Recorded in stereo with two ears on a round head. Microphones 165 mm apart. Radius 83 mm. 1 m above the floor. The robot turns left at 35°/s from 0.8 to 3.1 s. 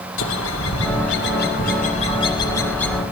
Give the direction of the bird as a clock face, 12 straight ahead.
9 o'clock.